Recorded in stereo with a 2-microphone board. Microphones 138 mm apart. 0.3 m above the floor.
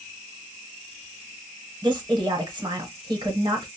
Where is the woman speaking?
30° right (ahead or behind), 1.0 m.